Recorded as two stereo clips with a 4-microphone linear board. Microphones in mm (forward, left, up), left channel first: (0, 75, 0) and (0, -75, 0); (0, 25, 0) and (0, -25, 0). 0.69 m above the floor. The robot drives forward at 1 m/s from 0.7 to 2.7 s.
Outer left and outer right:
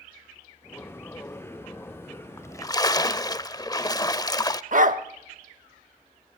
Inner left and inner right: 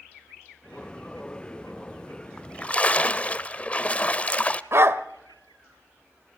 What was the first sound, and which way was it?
A splash, 15° left (ahead or behind).